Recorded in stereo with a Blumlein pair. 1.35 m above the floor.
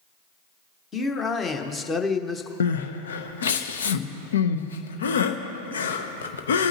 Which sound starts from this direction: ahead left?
Crying, at 2.6 s.